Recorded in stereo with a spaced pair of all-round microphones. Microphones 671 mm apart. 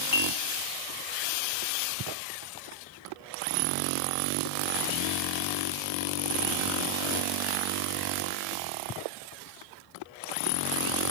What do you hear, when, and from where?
0.1 s dishes clattering: 35° left (ahead or behind), 0.8 m